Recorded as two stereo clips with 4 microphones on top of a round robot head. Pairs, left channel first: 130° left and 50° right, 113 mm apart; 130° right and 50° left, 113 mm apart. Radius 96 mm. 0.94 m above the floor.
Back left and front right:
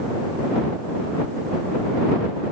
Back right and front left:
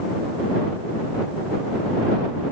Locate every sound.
Only background noise.